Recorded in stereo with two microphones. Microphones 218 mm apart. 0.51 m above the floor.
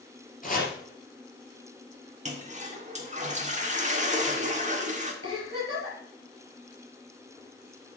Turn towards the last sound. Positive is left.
turn(degrees=90)